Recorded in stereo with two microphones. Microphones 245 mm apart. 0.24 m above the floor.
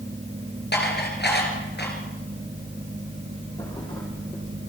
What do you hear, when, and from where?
0.7 s dishes clattering: 50° left (ahead or behind), 2.5 m
3.6 s a thud: 20° left (ahead or behind), 4.5 m